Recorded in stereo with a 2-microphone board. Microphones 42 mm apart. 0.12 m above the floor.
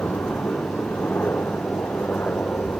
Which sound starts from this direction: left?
A helicopter, at 0.0 s.